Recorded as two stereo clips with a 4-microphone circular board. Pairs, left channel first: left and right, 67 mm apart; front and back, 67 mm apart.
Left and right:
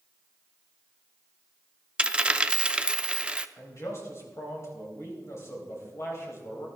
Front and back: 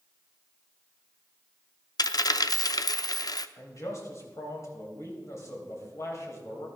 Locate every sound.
2.0 s a dropped coin: 15° right, 0.5 m
3.6 s a man speaking: 40° left, 3.5 m